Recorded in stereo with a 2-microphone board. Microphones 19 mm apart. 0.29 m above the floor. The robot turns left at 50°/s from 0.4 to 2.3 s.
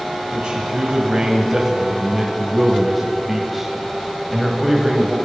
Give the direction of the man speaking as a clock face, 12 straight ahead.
3 o'clock.